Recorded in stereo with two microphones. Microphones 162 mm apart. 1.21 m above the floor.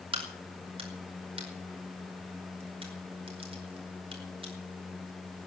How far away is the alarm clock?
I don't hear an alarm clock.